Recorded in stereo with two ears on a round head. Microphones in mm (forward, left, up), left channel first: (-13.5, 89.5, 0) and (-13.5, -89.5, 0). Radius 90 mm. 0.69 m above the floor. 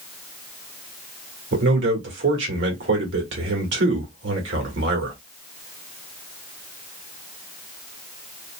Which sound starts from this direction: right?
A man speaking, at 1.5 s.